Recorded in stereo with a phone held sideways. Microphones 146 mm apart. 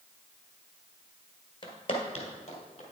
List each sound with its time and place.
1.6 s footsteps: 35° left (ahead or behind), 1.7 m; by 2.8 s 50° left (ahead or behind), 2.5 m